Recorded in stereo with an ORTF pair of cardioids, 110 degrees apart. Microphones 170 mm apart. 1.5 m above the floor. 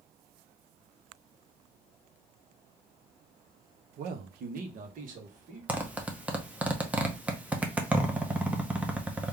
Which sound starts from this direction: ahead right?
A man speaking, at 4.0 s.